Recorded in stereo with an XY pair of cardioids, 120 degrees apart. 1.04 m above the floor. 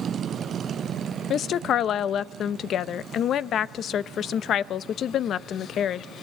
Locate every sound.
1.3 s a woman speaking: 55° left, 0.7 m